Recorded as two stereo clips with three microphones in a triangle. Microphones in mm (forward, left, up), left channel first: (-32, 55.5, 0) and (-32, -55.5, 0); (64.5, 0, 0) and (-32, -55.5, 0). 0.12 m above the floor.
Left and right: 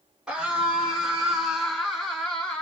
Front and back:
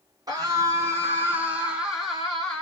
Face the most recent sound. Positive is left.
turn(degrees=40)